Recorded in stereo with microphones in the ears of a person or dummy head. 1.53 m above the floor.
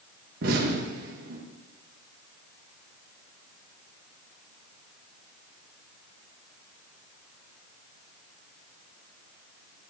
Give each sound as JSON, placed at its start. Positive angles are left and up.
{"t": 0.4, "sound": "an explosion", "side_deg": -55, "distance_m": 2.5}